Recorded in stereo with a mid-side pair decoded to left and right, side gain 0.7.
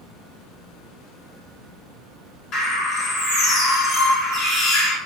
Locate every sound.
2.5 s a bird: 45° left, 1.7 m